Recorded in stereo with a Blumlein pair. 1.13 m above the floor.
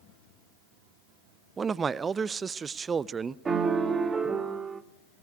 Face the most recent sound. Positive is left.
turn(degrees=-15)